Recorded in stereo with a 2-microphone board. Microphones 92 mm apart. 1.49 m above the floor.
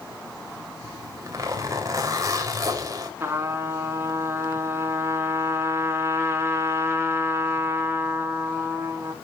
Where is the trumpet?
30° right (ahead or behind), 3.5 m.